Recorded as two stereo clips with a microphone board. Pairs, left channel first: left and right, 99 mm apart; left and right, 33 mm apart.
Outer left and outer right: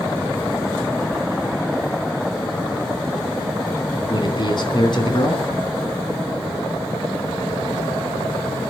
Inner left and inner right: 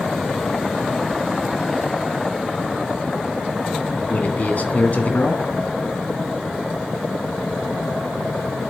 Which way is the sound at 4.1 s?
55° left (ahead or behind).